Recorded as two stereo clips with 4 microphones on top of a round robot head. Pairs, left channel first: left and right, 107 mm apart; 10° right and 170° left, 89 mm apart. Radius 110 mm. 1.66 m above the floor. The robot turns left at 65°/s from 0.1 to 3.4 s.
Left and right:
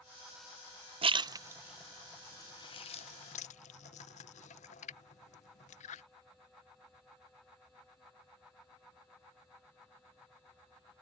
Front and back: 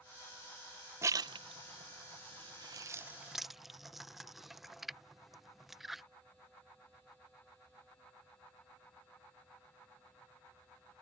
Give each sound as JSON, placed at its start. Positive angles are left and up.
{"t": 1.0, "sound": "a splash", "azimuth_deg": -120}